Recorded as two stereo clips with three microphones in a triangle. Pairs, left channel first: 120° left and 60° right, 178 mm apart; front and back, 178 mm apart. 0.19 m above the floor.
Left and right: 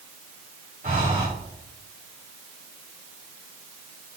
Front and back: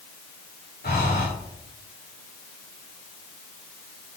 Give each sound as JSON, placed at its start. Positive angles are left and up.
{"t": 0.8, "sound": "breathing", "azimuth_deg": -20, "distance_m": 5.5}